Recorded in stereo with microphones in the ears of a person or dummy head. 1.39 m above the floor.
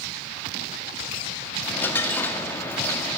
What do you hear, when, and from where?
1.6 s a dropped coin: 15° left (ahead or behind), 1.4 m